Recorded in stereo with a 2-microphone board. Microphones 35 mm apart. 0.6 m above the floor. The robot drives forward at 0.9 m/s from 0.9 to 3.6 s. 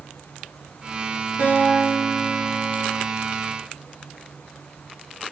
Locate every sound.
1.4 s a guitar: 75° right (ahead or behind), 10 m; by 3.1 s 85° right, 9.5 m